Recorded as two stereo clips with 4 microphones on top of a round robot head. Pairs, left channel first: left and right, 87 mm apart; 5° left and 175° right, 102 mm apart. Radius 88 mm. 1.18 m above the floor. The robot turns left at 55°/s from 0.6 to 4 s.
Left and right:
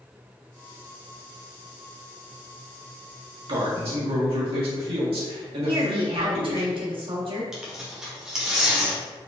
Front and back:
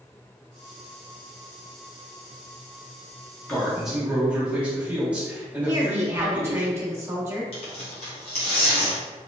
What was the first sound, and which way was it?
A man speaking, 70° right.